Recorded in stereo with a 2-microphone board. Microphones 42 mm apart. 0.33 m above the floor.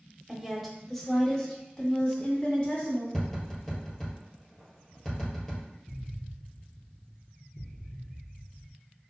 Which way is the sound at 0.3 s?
10° right (ahead or behind).